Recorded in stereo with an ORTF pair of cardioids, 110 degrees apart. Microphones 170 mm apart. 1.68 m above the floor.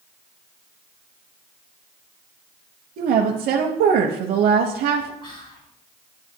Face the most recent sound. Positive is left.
turn(degrees=35)